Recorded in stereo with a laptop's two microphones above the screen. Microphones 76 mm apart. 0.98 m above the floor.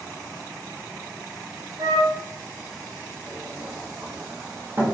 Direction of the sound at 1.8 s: 50° right (ahead or behind).